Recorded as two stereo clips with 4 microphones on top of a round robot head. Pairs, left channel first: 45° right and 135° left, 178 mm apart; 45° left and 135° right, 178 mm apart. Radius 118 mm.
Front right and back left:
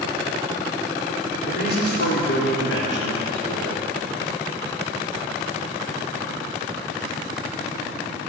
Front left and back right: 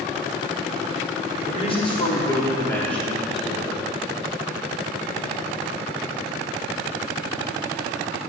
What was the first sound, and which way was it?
A man speaking, 10° right.